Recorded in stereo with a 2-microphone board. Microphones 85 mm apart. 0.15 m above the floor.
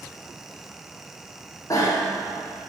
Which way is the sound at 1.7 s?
40° left (ahead or behind).